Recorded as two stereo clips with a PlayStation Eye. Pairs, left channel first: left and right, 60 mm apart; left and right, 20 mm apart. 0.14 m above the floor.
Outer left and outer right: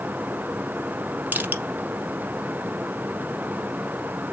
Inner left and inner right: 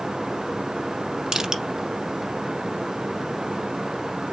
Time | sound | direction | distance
1.3 | crushing | 30° right (ahead or behind) | 1.1 m